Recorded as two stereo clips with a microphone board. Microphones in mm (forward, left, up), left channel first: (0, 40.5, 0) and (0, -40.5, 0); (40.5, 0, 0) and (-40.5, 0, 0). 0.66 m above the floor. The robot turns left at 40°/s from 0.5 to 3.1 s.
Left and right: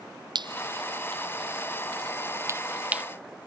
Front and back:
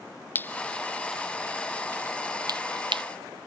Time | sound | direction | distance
0.3 | dripping | 65° right | ?